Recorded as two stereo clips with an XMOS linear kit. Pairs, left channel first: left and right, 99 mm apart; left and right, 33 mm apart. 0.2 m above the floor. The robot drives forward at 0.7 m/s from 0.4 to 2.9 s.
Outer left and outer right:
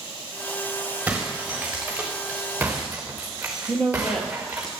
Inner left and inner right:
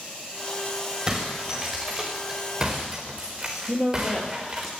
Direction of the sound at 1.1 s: 10° right (ahead or behind).